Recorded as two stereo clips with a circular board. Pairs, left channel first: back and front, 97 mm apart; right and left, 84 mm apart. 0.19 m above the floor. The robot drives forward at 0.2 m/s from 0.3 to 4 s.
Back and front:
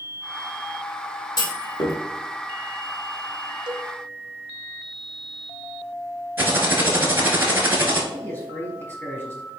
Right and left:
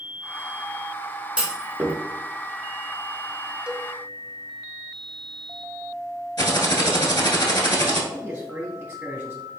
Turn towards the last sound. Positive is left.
turn(degrees=145)